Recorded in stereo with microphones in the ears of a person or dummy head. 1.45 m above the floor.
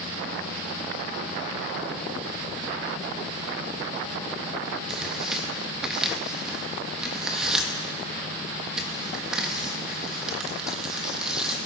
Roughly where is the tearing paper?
Centre.